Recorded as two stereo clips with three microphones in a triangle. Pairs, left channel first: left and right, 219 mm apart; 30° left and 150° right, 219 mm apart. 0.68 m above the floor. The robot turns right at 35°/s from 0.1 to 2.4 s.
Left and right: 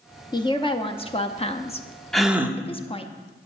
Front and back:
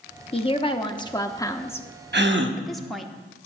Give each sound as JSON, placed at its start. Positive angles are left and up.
{"t": 0.3, "sound": "a woman speaking", "azimuth_deg": 45, "distance_m": 0.7}
{"t": 2.1, "sound": "a gasp", "azimuth_deg": 180, "distance_m": 0.9}